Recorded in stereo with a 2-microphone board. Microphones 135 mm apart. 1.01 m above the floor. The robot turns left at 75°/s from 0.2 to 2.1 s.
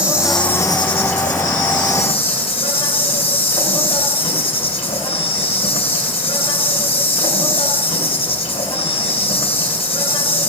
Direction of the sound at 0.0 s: 170° right.